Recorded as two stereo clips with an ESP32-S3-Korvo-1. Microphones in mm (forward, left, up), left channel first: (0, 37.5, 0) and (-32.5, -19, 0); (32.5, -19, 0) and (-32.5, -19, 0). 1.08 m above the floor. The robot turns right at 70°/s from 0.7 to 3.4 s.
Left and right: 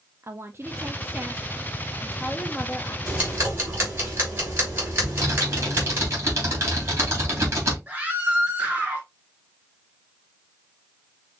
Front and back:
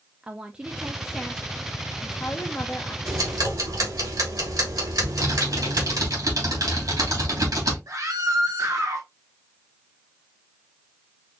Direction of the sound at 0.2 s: 115° right.